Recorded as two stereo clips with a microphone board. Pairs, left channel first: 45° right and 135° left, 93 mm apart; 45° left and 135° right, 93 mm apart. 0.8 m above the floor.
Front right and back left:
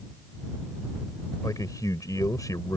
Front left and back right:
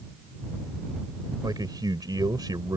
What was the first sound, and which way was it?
A man speaking, 95° right.